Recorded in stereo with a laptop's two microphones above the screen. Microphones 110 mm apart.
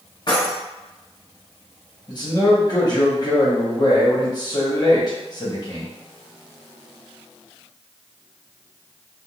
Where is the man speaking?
40° left (ahead or behind), 1.0 m.